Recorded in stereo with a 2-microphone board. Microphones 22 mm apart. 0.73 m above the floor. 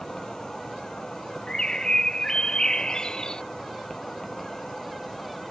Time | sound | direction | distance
0.0 | an insect | 30° left (ahead or behind) | ?
1.5 | a bird | 35° left (ahead or behind) | ?